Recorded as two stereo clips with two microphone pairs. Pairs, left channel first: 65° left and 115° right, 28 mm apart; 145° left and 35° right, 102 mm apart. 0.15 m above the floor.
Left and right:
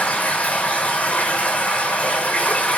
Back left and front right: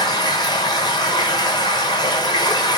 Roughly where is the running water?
Left.